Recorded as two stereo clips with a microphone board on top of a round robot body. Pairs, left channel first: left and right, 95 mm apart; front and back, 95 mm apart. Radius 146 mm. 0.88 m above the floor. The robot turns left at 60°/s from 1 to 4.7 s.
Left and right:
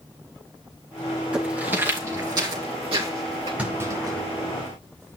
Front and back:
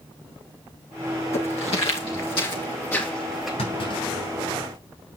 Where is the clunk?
10° right, 8.5 m; by 4.8 s 80° right, 8.5 m.